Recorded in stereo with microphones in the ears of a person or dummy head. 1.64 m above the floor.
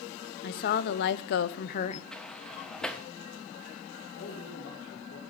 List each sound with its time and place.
0.4 s a woman speaking: 50° left (ahead or behind), 0.8 m; by 2.0 s 35° left (ahead or behind), 0.5 m
2.1 s a sliding door: 10° left (ahead or behind), 0.6 m
4.2 s a man speaking: 75° left (ahead or behind), 2.5 m